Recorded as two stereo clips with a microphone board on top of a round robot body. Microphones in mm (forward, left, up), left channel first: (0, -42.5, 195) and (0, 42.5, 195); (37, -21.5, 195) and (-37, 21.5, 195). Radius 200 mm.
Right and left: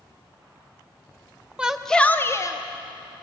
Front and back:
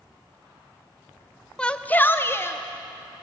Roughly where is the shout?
Ahead left.